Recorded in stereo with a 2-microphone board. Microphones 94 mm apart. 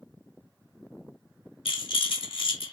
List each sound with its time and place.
1.6 s a rattle: 75° left (ahead or behind), 1.3 m